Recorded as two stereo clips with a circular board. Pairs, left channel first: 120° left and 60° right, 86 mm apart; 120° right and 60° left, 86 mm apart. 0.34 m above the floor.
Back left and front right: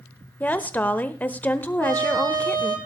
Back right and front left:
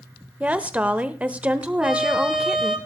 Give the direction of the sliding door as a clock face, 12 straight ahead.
I don't hear a sliding door.